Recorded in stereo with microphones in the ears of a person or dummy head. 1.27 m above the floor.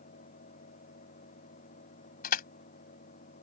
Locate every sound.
0.0 s a fan: 45° left (ahead or behind)
2.2 s crushing: 55° left (ahead or behind)